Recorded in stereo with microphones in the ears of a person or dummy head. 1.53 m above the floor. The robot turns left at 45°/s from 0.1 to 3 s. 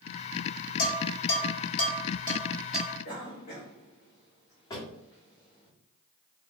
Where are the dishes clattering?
60° left (ahead or behind), 1.2 m; by 2.9 s 5° right (ahead or behind), 1.2 m.